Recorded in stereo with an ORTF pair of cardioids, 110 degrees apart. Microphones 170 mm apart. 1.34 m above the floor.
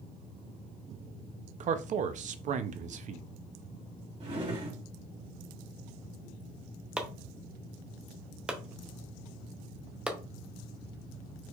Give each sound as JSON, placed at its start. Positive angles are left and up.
{"t": 1.6, "sound": "a man speaking", "azimuth_deg": -50, "distance_m": 0.5}
{"t": 4.2, "sound": "a drawer", "azimuth_deg": -40, "distance_m": 2.0}
{"t": 7.0, "sound": "chopping", "azimuth_deg": -5, "distance_m": 0.7}